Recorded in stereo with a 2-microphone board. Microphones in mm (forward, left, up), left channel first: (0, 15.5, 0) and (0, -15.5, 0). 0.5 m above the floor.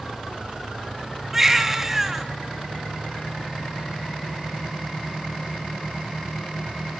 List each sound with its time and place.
1.3 s a baby crying: 5° right (ahead or behind), 3 m